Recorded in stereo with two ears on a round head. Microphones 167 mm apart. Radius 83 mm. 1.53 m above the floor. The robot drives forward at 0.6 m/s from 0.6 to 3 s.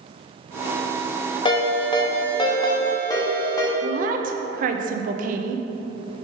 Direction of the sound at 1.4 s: 25° left (ahead or behind).